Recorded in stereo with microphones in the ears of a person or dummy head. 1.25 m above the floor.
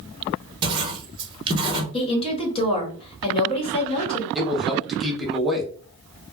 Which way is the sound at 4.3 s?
Centre (ahead or behind).